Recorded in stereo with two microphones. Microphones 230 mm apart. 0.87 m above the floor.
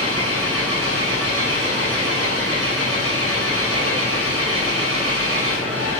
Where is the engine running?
85° left, 7.5 m.